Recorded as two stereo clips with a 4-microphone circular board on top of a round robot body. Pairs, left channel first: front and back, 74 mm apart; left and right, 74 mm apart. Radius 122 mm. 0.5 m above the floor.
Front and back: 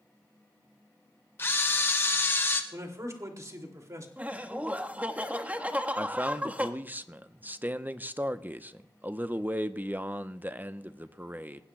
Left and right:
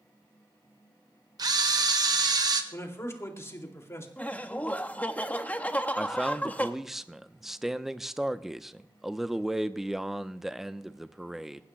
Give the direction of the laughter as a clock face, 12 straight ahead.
8 o'clock.